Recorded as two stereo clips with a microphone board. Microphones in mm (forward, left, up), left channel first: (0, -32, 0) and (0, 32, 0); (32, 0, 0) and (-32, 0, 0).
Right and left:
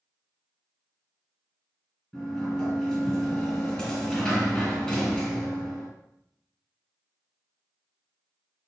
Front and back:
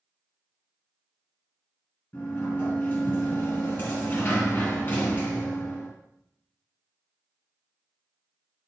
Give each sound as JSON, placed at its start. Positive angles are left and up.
{"t": 2.1, "sound": "a sliding door", "azimuth_deg": -15, "distance_m": 1.8}